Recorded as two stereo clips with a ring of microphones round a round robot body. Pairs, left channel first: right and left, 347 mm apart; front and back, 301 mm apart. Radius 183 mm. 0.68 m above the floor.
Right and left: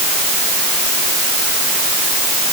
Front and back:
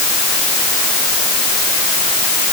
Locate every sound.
Only background noise.